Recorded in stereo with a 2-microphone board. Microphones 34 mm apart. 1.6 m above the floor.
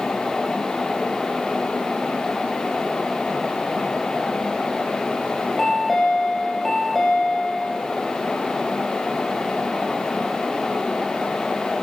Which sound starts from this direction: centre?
A chime, at 5.6 s.